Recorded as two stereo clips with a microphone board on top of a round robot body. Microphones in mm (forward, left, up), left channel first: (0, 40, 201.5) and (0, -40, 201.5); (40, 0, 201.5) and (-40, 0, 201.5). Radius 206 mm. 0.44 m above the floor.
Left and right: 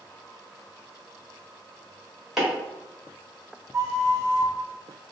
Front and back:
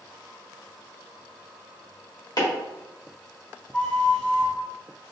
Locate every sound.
2.4 s chopping: 10° right, 2.0 m
3.7 s a flute: 65° right, 1.1 m